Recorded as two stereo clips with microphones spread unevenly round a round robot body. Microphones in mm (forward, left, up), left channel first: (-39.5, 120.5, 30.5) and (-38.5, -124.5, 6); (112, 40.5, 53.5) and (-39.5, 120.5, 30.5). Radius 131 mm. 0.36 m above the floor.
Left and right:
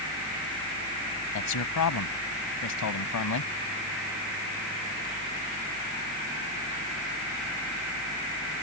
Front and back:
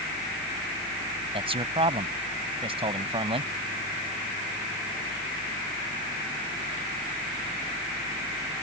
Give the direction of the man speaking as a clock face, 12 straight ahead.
9 o'clock.